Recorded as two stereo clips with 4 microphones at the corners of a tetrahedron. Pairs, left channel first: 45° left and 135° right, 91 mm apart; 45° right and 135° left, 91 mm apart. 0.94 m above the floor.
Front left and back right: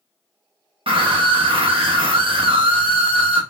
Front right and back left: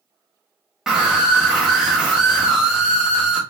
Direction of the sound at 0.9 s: 145° right.